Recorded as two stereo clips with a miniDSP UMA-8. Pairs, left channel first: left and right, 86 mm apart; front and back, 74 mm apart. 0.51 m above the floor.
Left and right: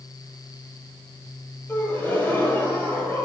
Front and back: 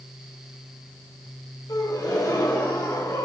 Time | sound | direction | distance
1.7 | a gasp | 25° left | 1.9 m